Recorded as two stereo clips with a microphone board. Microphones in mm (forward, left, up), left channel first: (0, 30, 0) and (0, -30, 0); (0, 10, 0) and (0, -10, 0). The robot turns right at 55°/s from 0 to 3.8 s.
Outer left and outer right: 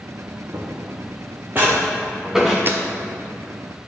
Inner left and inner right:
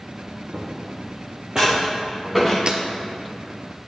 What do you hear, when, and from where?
0.5 s footsteps: 65° right (ahead or behind), 1.5 m; by 2.6 s centre (ahead or behind), 1.8 m
2.7 s breaking glass: 40° right (ahead or behind), 0.8 m; by 2.8 s 35° right (ahead or behind), 0.8 m